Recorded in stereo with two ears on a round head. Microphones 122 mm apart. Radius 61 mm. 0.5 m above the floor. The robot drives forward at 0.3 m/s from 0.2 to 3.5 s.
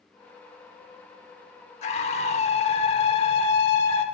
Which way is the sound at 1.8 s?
50° left (ahead or behind).